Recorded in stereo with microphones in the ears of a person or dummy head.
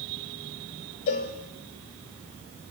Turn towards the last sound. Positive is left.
turn(degrees=35)  # may be behind; listen again after turning